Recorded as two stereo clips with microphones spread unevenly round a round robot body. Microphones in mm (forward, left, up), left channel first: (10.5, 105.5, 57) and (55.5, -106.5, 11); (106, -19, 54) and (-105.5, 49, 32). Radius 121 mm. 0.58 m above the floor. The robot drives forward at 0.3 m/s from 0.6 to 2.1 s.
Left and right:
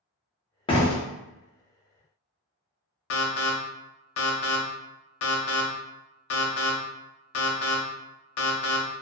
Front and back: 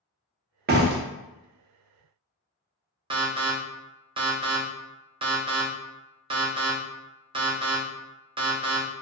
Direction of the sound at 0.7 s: 175° left.